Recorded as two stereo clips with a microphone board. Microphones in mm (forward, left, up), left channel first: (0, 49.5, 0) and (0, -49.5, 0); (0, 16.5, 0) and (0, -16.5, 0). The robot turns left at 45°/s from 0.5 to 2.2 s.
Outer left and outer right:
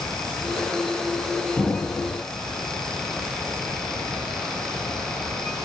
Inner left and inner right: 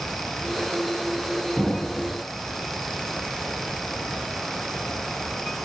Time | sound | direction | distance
1.6 | an explosion | 15° left (ahead or behind) | 0.5 m